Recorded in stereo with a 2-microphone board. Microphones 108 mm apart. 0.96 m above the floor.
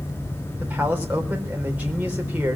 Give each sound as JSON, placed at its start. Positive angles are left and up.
{"t": 0.6, "sound": "a man speaking", "side_deg": -15, "distance_m": 4.0}